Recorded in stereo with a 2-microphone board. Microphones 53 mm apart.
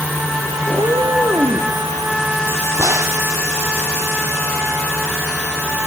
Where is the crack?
70° right (ahead or behind), 2.5 m.